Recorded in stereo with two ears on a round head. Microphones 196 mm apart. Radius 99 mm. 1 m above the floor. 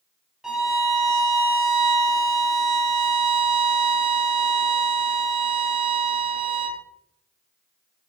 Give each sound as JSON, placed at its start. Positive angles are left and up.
{"t": 0.4, "sound": "a violin", "side_deg": -5, "distance_m": 1.1}